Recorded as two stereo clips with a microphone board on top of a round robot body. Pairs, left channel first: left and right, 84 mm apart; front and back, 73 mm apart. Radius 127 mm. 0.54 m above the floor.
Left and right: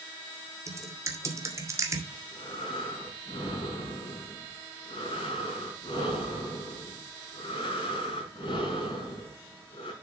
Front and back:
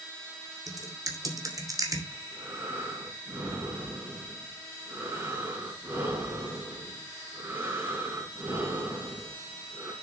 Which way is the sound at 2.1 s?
115° left.